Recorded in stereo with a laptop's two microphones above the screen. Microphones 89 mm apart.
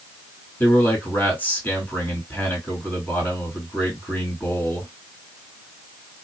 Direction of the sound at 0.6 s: 25° left (ahead or behind).